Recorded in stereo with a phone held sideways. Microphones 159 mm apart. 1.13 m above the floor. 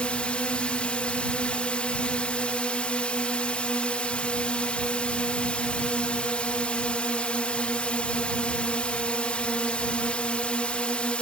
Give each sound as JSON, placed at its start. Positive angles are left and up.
{"t": 0.0, "sound": "a drone", "side_deg": 10}